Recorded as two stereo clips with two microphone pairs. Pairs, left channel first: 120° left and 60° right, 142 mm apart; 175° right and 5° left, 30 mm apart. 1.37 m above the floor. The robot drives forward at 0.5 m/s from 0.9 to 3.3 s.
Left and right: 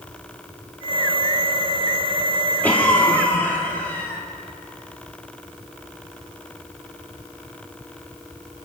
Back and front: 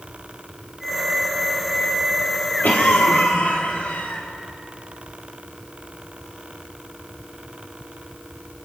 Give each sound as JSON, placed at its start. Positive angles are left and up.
{"t": 2.6, "sound": "a cough", "azimuth_deg": -160, "distance_m": 3.5}